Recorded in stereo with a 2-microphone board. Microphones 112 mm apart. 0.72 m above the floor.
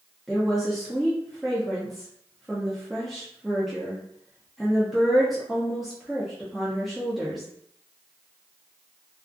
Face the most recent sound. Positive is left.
turn(degrees=0)  # may be behind; listen again after turning